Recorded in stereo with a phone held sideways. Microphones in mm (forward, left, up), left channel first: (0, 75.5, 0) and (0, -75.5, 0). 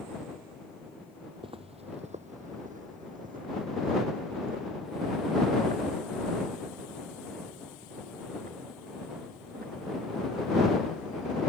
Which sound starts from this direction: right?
Footsteps, at 1.4 s.